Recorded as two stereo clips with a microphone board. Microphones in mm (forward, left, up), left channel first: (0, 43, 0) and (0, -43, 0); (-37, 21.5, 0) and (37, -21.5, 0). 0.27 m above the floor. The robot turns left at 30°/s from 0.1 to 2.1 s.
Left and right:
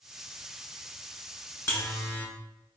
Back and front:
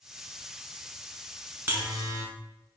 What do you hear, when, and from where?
1.7 s a buzzer: 35° left, 1.1 m; by 2.2 s 25° left, 1.1 m